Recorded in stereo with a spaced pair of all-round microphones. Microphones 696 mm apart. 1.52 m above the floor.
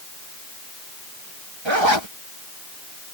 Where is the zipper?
40° right (ahead or behind).